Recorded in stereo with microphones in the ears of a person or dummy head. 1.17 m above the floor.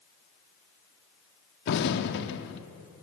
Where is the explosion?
70° left (ahead or behind), 1.5 m.